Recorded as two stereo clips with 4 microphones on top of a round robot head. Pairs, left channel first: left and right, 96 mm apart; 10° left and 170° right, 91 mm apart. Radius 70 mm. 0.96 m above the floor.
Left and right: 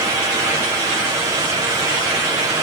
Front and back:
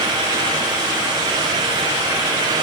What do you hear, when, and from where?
Only background noise.